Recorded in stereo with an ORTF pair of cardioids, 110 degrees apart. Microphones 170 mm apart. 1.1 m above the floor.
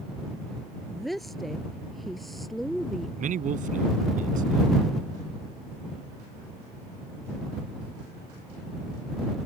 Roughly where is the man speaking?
Ahead right.